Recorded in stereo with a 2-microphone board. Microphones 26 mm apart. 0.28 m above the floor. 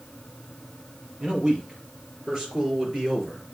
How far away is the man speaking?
About 5.5 m.